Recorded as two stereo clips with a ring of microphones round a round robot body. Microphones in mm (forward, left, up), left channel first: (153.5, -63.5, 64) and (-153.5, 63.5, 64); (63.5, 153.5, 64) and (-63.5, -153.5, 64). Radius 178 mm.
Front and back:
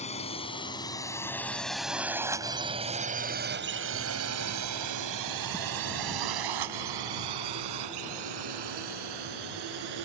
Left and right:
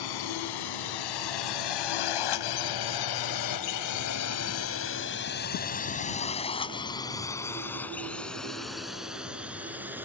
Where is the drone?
50° left; by 10.1 s 165° left.